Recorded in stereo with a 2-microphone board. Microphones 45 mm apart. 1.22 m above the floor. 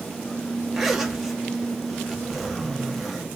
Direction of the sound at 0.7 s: 5° right (ahead or behind).